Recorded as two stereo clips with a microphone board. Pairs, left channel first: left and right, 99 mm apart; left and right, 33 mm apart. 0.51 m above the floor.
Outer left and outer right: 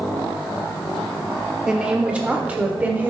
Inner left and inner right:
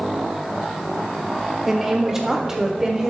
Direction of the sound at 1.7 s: 10° right (ahead or behind).